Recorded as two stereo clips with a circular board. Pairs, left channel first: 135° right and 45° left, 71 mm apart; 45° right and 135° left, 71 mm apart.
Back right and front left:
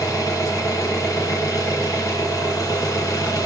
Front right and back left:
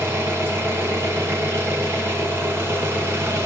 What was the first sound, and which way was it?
An engine running, 170° right.